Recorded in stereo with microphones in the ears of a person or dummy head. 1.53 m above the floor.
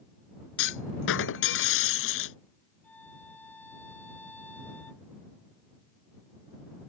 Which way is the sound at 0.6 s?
70° left (ahead or behind).